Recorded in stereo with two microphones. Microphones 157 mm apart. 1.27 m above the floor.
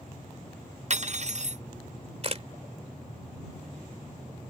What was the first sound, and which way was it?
Cutlery clinking, 50° right (ahead or behind).